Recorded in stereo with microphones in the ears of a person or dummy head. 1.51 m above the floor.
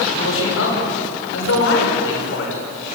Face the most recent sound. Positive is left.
turn(degrees=85)